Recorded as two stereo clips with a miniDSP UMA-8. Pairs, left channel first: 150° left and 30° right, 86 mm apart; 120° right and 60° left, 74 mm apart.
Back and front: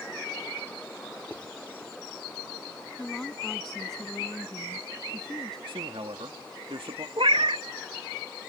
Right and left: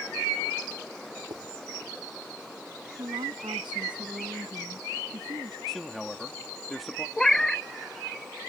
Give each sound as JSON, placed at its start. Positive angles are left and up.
{"t": 1.3, "sound": "writing", "azimuth_deg": 75}
{"t": 3.0, "sound": "a woman speaking", "azimuth_deg": 65}
{"t": 5.7, "sound": "a man speaking", "azimuth_deg": -35}
{"t": 7.2, "sound": "a cat meowing", "azimuth_deg": -40}